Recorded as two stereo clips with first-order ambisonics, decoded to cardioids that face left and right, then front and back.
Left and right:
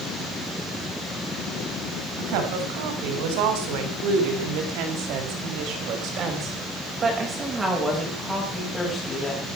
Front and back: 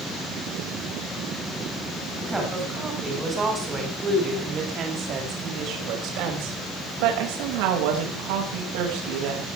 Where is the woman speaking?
95° right, 8 m; by 9.5 s 170° left, 6.5 m.